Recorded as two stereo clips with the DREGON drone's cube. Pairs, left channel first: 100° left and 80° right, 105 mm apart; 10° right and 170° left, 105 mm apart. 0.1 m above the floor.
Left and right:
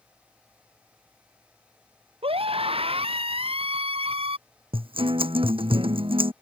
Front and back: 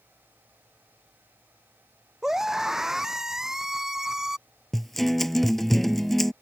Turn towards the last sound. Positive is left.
turn(degrees=-100)